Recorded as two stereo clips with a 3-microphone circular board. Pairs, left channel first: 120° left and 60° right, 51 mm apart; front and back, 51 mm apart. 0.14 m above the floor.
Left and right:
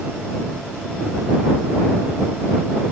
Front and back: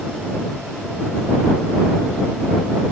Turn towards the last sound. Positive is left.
No sound to turn to.